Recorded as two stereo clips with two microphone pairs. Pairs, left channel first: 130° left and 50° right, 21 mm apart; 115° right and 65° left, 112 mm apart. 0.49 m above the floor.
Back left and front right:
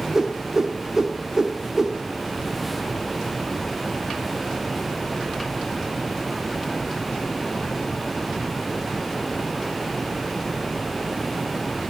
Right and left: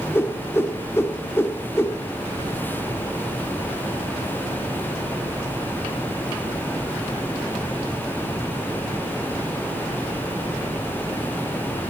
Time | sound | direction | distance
0.1 | a whoosh | 85° right | 0.5 m